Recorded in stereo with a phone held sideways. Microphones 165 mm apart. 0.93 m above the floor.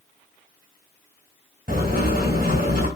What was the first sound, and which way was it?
Writing, 60° right (ahead or behind).